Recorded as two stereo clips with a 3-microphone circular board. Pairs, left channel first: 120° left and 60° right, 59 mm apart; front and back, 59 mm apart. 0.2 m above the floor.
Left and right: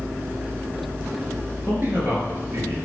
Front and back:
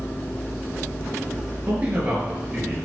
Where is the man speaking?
110° right, 4.5 m; by 2.8 s 105° right, 4 m.